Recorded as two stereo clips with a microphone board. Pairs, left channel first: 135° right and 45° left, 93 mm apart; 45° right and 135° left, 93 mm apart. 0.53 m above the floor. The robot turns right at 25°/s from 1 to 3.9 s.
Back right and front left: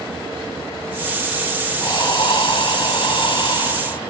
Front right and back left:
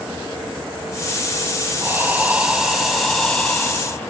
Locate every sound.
1.8 s breathing: 160° right, 0.5 m; by 4.1 s 110° right, 0.5 m